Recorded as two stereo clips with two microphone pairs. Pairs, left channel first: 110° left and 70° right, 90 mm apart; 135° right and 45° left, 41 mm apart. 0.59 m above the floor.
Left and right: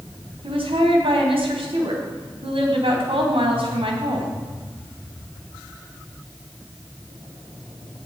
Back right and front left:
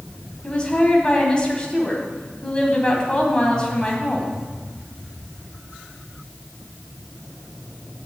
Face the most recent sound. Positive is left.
turn(degrees=-65)